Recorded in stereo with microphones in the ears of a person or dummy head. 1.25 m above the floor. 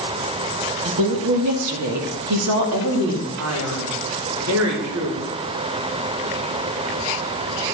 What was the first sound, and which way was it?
A woman speaking, 80° right.